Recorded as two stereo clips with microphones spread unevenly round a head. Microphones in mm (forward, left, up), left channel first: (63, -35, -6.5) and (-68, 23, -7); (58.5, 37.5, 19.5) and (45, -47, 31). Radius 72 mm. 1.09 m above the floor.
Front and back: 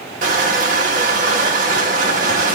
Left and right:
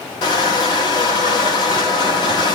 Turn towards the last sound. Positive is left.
turn(degrees=120)